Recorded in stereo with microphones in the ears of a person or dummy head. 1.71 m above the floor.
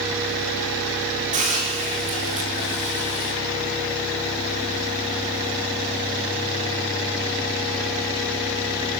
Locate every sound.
1.3 s a hiss: 40° right (ahead or behind), 5.5 m